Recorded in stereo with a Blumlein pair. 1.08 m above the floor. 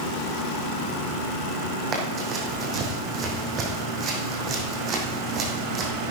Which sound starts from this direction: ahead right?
Running footsteps, at 1.9 s.